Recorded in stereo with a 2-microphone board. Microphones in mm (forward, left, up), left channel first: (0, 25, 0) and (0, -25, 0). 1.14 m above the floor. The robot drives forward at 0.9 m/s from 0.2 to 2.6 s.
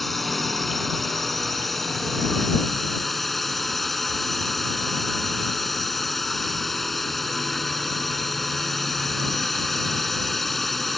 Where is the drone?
Centre (ahead or behind).